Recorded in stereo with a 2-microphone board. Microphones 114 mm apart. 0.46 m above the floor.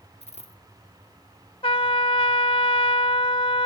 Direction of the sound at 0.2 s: 70° left (ahead or behind).